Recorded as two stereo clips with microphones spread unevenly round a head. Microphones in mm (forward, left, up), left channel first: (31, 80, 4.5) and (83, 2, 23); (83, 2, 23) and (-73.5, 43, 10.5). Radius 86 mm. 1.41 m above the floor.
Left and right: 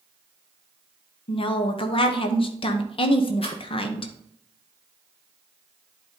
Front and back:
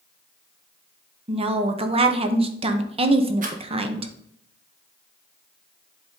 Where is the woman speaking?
115° left, 0.9 m.